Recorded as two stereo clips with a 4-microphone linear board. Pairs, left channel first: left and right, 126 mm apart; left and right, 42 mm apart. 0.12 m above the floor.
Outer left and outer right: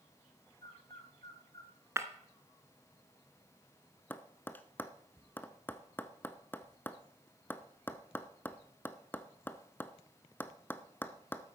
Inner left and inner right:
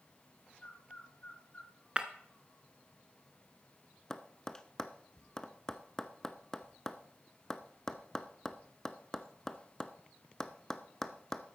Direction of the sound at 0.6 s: 40° left (ahead or behind).